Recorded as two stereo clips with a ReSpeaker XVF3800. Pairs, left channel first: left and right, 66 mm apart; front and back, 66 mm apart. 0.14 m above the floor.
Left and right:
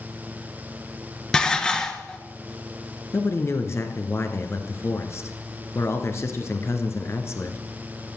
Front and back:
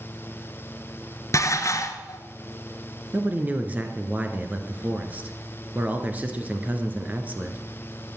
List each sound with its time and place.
1.3 s dishes clattering: 15° left, 1.3 m
3.1 s a man speaking: 120° left, 2 m